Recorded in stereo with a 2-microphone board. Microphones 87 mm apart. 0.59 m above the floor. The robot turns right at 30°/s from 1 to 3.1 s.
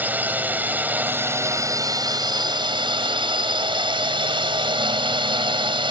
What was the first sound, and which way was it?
A drone, 160° right.